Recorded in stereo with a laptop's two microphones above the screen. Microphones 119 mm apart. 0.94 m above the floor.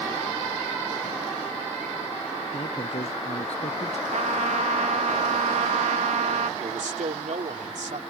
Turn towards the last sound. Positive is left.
turn(degrees=-75)  # may be behind; listen again after turning